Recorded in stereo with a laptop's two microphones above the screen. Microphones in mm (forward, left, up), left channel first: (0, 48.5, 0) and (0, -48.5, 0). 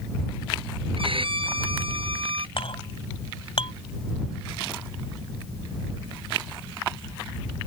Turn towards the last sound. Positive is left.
turn(degrees=65)  # may be behind; listen again after turning